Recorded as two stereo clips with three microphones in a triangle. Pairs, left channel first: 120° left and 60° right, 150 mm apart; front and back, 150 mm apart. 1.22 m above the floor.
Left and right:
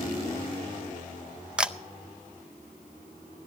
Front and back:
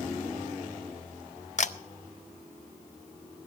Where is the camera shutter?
25° left, 0.6 m.